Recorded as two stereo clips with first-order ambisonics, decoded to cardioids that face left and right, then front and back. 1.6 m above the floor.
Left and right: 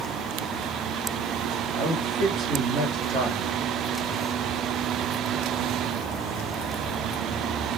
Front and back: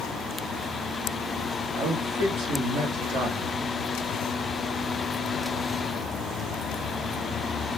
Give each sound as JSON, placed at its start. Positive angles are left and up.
{"t": 1.8, "sound": "a man speaking", "azimuth_deg": -135, "distance_m": 1.4}